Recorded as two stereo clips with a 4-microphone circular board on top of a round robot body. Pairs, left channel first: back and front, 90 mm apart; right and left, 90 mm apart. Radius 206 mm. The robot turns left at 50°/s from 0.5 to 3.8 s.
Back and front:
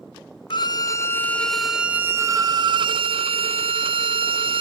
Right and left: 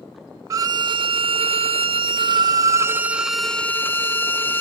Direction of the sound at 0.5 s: 145° left.